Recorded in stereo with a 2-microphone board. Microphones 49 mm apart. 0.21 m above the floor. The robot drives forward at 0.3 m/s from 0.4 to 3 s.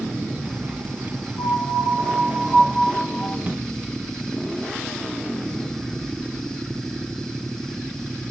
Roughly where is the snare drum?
Right.